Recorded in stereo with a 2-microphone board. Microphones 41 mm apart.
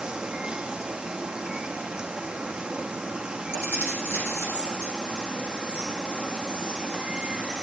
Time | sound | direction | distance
0.0 | running water | 20° right (ahead or behind) | 0.7 m
3.5 | keys jangling | 70° left (ahead or behind) | 4.5 m